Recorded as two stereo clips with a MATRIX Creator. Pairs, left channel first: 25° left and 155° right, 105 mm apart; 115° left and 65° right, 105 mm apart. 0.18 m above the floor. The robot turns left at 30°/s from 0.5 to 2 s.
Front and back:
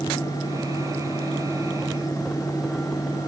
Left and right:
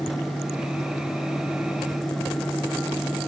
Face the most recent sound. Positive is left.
No sound to turn to.